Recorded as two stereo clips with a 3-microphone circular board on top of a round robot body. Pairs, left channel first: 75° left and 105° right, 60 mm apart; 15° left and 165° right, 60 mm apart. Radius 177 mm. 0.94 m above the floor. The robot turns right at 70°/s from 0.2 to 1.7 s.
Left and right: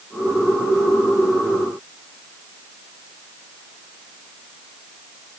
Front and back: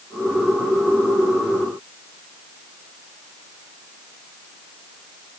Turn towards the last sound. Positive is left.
No sound to turn to.